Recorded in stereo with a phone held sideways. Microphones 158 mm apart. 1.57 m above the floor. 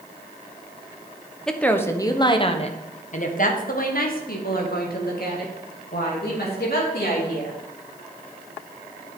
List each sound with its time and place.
1.5 s a woman speaking: 5° left (ahead or behind), 1.0 m; by 7.6 s 85° left, 3.5 m